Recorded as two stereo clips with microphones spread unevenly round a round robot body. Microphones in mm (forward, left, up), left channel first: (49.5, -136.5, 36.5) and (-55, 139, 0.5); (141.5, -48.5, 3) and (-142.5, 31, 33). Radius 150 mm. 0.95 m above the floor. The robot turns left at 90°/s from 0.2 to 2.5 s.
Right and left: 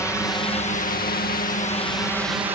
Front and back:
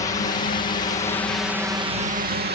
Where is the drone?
10° left; by 2.5 s 170° left.